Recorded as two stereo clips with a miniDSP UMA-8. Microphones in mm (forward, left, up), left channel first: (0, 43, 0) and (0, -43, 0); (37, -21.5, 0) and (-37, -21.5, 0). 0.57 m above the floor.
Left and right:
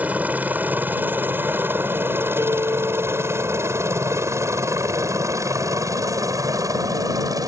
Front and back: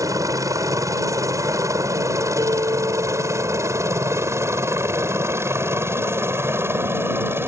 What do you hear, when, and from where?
0.0 s a helicopter: 160° right; by 7.5 s 130° right
2.4 s a guitar: 145° right